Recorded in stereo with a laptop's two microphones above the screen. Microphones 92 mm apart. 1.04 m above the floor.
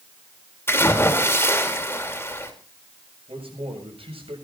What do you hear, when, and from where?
0.7 s a splash: 25° left (ahead or behind), 2.5 m
3.3 s a man speaking: 80° right, 7 m